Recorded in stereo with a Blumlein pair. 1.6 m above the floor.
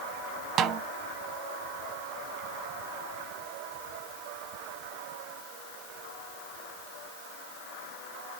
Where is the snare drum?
30° right, 0.6 m.